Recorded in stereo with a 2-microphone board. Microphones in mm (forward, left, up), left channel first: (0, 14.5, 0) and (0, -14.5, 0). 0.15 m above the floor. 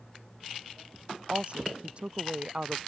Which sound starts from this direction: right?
A woman speaking, at 1.3 s.